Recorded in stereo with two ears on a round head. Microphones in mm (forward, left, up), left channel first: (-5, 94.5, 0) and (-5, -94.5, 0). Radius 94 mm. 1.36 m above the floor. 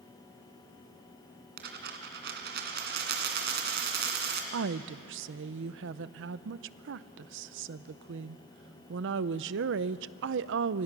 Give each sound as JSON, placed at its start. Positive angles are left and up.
{"t": 1.6, "sound": "a dropped coin", "side_deg": -55, "distance_m": 2.5}
{"t": 4.5, "sound": "a woman speaking", "side_deg": -60, "distance_m": 0.6}